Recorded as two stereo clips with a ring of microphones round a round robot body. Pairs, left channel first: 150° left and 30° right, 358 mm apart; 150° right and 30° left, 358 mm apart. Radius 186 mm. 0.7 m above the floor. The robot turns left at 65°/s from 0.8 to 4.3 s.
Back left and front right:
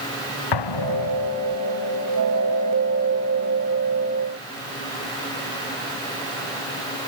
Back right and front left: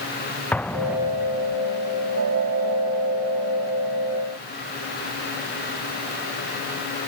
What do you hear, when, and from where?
0.5 s an explosion: 125° left; by 1.6 s 70° left